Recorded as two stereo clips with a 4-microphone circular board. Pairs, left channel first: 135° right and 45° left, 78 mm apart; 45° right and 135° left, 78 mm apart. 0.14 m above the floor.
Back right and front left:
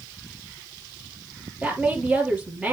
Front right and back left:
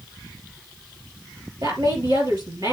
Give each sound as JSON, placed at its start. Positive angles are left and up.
{"t": 1.6, "sound": "a woman speaking", "azimuth_deg": 120, "distance_m": 3.0}